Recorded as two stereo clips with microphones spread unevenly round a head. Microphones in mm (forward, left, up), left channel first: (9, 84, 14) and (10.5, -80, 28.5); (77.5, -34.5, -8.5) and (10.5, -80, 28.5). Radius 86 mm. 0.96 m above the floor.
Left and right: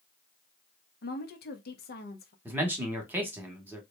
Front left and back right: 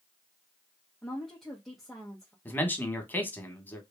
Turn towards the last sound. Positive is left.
turn(degrees=-10)